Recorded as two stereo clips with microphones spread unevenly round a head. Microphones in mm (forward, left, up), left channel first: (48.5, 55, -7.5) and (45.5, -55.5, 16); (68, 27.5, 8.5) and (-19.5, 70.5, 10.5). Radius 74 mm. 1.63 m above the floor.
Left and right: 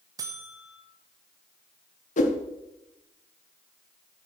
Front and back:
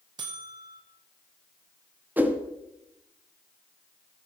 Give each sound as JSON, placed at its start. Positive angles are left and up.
{"t": 0.2, "sound": "a buzzer", "azimuth_deg": -150, "distance_m": 1.1}
{"t": 2.2, "sound": "a whoosh", "azimuth_deg": 80, "distance_m": 1.3}